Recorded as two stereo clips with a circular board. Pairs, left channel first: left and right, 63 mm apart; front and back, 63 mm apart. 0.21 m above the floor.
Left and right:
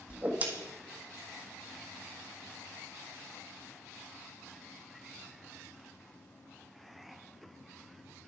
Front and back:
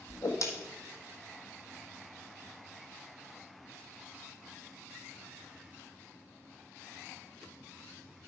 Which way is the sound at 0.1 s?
25° right.